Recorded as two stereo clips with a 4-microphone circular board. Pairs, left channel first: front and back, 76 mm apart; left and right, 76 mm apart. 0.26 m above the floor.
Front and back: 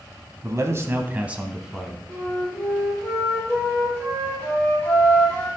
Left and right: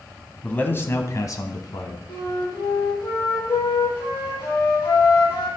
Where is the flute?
70° left, 4.5 m.